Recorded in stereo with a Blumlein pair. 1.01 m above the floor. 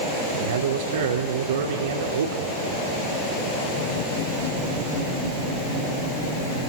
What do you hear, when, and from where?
0.3 s a man speaking: 60° right, 3.5 m